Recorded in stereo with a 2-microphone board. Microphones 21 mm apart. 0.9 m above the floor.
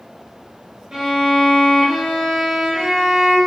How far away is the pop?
I don't hear a pop.